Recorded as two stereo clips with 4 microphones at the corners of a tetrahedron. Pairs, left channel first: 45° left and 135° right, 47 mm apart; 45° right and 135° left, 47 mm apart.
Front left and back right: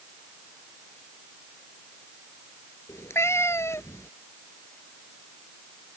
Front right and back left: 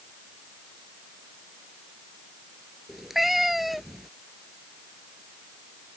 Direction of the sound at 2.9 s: 50° left.